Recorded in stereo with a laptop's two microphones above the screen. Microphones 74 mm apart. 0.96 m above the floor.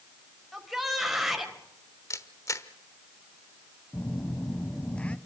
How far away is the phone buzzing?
About 1.1 m.